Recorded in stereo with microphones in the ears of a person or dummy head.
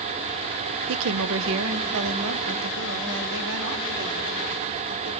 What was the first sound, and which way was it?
A woman speaking, 80° right.